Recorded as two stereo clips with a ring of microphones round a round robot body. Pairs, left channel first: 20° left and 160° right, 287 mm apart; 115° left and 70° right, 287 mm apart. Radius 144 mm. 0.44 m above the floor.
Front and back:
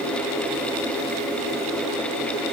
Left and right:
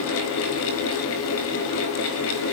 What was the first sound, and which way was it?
Only background noise.